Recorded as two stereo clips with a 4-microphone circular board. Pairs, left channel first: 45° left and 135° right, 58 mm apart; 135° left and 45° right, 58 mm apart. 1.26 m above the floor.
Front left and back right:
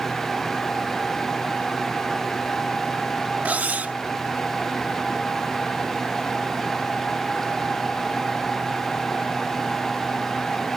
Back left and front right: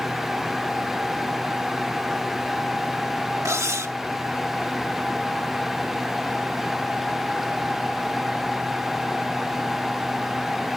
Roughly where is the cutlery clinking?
Right.